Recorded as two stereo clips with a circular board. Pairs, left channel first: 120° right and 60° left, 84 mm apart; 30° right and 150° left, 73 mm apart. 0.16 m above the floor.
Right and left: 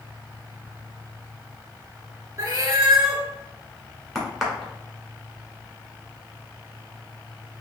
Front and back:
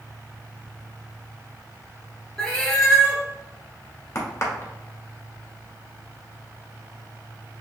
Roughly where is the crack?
Ahead right.